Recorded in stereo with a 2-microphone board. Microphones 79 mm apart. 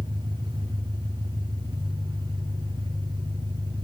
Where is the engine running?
80° right, 4 m.